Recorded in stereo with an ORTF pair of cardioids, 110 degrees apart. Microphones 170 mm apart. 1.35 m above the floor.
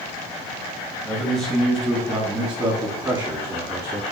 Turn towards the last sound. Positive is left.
turn(degrees=-25)